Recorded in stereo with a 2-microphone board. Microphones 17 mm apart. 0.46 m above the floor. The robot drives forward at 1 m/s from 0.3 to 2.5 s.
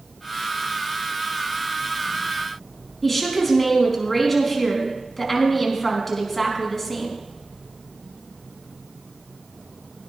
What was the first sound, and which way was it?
A woman speaking, 15° left (ahead or behind).